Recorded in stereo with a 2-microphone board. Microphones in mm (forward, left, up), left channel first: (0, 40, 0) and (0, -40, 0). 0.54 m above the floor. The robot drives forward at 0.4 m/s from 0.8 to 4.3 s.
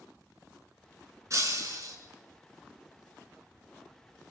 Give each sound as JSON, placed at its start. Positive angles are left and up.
{"t": 1.3, "sound": "breaking glass", "side_deg": -45, "distance_m": 2.5}